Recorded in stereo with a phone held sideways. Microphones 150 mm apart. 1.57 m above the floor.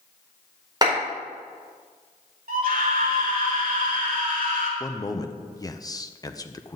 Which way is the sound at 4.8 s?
25° left (ahead or behind).